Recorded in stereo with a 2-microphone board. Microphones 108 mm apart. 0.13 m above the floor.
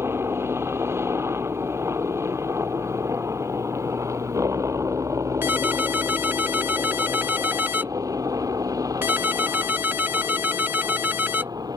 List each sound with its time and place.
0.0 s a helicopter: 25° right (ahead or behind); by 11.8 s 35° right (ahead or behind)
5.4 s a ringtone: 20° right (ahead or behind)